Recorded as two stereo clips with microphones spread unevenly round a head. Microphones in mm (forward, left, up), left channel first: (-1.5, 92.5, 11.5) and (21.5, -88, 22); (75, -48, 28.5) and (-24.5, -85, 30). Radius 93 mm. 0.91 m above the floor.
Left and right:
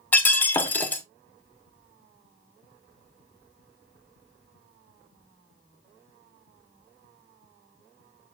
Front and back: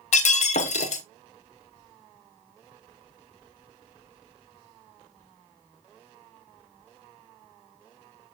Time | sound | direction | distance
0.1 | breaking glass | 15° left | 1.1 m